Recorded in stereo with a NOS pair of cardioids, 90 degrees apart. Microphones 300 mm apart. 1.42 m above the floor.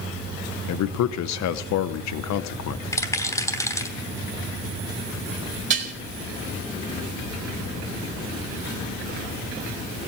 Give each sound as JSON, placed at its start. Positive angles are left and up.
{"t": 0.7, "sound": "a man speaking", "azimuth_deg": 65, "distance_m": 1.0}
{"t": 2.9, "sound": "a rattle", "azimuth_deg": 10, "distance_m": 3.0}
{"t": 5.7, "sound": "dishes clattering", "azimuth_deg": -40, "distance_m": 3.0}